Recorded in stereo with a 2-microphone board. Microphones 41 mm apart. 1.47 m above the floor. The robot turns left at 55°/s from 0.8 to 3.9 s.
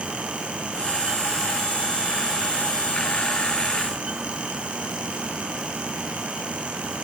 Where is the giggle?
I don't hear a giggle.